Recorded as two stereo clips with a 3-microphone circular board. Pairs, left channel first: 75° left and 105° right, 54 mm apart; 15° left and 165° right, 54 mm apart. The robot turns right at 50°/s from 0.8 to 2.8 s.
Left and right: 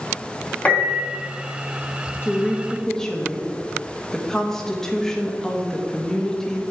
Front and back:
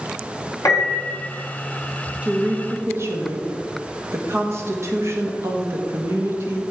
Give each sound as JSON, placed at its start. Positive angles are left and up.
{"t": 0.7, "sound": "a piano", "azimuth_deg": 15, "distance_m": 2.5}
{"t": 2.2, "sound": "a woman speaking", "azimuth_deg": 130, "distance_m": 1.4}